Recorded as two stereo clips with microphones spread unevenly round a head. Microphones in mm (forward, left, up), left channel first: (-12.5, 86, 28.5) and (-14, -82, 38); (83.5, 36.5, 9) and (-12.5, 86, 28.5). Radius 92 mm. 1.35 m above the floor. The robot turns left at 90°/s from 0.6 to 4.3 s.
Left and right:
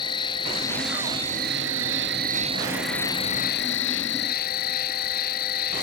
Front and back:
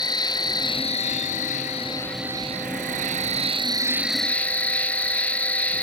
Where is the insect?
25° left; by 5.8 s 50° left.